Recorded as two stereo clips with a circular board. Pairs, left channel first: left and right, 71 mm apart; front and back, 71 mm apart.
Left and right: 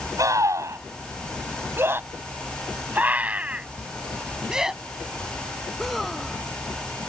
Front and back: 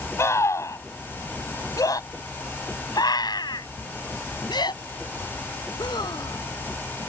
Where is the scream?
50° right; by 6.4 s 5° left.